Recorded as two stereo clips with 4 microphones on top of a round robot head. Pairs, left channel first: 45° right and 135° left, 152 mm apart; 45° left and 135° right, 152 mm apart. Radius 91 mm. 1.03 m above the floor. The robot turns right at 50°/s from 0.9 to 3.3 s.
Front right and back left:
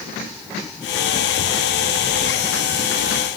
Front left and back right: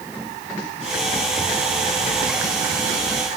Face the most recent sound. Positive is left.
No sound to turn to.